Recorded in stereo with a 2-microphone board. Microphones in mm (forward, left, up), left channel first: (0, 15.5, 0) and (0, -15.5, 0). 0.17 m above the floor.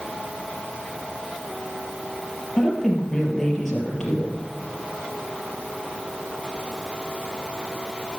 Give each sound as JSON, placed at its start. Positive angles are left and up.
{"t": 2.6, "sound": "a woman speaking", "side_deg": 15, "distance_m": 4.5}